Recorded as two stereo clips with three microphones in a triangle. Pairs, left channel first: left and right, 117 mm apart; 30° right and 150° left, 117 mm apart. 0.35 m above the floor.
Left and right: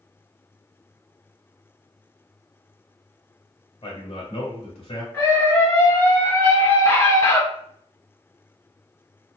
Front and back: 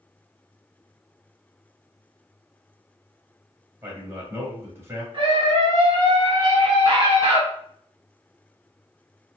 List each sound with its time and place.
3.8 s a man speaking: 85° left, 1.5 m
5.1 s a scream: 135° left, 1.9 m